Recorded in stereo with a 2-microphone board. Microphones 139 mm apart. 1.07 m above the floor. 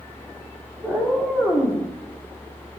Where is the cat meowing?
10° right (ahead or behind), 0.7 m; by 1.8 s 20° left (ahead or behind), 0.9 m.